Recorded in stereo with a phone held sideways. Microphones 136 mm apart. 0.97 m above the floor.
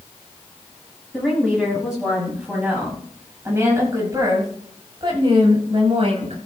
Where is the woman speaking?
Centre (ahead or behind), 7.5 m; by 6.4 s 55° right (ahead or behind), 5.5 m.